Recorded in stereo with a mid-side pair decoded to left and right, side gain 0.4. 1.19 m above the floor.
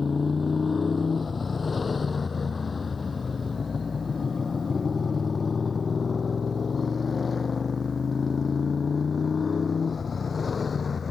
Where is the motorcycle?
35° left; by 11.1 s 40° left.